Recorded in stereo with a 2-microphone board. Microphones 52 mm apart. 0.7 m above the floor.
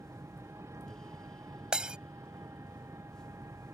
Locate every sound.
0.0 s an engine running: 70° right (ahead or behind)
1.7 s breaking glass: 20° right (ahead or behind)